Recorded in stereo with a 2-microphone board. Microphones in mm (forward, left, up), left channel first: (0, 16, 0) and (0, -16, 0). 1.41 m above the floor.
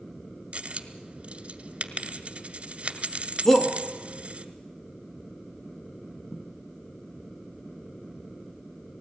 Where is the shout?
10° left (ahead or behind), 1.7 m.